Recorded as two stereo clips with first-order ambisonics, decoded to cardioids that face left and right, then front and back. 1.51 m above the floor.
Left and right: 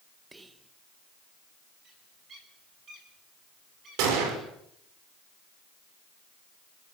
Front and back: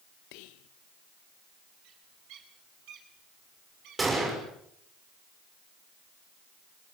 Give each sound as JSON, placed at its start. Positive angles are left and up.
{"t": 0.3, "sound": "whispering", "azimuth_deg": -10, "distance_m": 1.3}
{"t": 1.8, "sound": "a bird", "azimuth_deg": -150, "distance_m": 9.0}
{"t": 4.0, "sound": "a gunshot", "azimuth_deg": -105, "distance_m": 6.5}